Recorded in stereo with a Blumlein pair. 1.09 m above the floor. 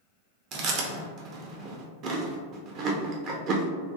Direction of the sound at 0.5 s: 35° right.